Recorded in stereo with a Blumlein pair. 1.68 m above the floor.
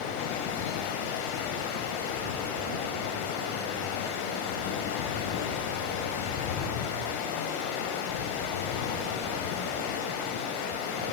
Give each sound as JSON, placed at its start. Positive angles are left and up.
{"t": 0.0, "sound": "running water", "azimuth_deg": 50, "distance_m": 6.0}